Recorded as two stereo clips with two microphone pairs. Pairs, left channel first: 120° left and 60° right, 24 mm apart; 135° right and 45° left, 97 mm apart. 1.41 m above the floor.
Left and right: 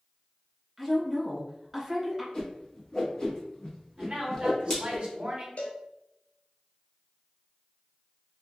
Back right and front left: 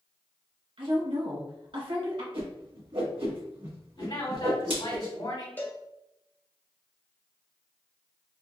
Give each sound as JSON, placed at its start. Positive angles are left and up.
{"t": 0.8, "sound": "a woman speaking", "azimuth_deg": 30, "distance_m": 1.9}
{"t": 2.3, "sound": "a whoosh", "azimuth_deg": 60, "distance_m": 1.3}
{"t": 4.0, "sound": "a man speaking", "azimuth_deg": -105, "distance_m": 1.9}
{"t": 5.6, "sound": "a cowbell", "azimuth_deg": 155, "distance_m": 0.6}